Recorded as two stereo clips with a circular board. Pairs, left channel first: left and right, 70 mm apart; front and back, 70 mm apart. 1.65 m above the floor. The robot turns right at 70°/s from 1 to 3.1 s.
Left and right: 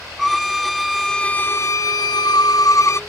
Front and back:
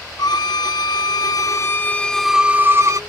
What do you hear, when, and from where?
0.2 s a violin: straight ahead; by 3.0 s 140° left